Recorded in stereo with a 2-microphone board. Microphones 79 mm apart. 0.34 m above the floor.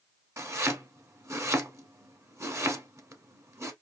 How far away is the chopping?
About 0.8 m.